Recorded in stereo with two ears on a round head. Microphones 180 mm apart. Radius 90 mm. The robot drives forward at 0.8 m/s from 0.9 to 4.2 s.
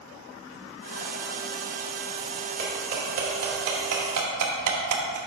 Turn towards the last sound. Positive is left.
turn(degrees=-85)